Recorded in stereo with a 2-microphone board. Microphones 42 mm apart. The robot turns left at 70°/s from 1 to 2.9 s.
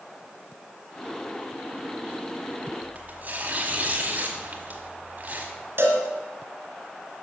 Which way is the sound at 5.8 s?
60° right (ahead or behind).